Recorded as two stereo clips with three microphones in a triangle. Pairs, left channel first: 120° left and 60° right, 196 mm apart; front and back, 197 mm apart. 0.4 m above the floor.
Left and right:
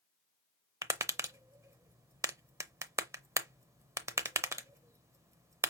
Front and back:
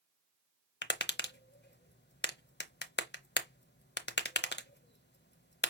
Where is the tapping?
15° left, 0.6 m.